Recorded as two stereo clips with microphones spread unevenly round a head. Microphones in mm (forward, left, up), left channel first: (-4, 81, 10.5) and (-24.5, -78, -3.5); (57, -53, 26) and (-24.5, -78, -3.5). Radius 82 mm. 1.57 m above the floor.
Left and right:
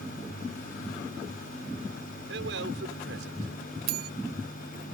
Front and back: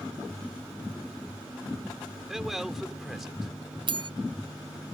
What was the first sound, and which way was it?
A man speaking, 75° right.